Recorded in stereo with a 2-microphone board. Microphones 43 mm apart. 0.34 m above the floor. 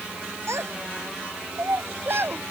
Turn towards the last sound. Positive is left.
turn(degrees=-55)  # may be behind; listen again after turning